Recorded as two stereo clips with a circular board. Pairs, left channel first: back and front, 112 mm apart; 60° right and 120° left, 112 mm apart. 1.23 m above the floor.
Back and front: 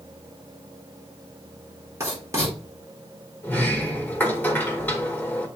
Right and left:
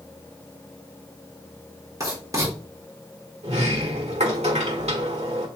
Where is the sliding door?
110° left, 1.6 m.